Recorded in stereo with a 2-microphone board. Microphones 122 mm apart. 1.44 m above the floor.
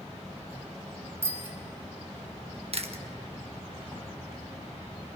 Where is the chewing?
55° right (ahead or behind), 1.2 m.